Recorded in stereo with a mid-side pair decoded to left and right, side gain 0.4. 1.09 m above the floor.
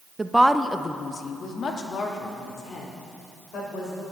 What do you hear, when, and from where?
0.2 s a woman speaking: 25° right, 0.6 m; by 4.0 s 70° left, 4 m